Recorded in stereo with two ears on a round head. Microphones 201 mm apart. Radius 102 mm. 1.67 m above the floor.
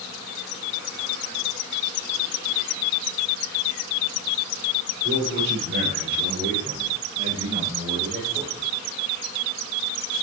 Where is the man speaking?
60° right (ahead or behind), 6 m; by 8.7 s 20° right (ahead or behind), 4 m.